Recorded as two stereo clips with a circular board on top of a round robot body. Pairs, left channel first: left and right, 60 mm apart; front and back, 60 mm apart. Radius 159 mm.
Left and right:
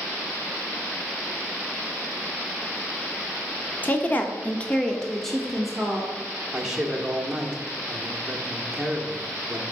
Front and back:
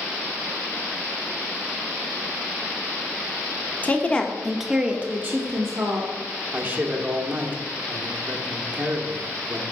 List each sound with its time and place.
3.8 s a woman speaking: 45° left, 1.1 m; by 6.1 s 170° right, 1.4 m
6.5 s a man speaking: 160° right, 1.3 m